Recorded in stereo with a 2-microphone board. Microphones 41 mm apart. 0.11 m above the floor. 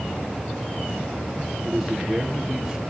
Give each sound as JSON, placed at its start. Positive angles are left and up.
{"t": 1.6, "sound": "a man speaking", "side_deg": -10, "distance_m": 2.5}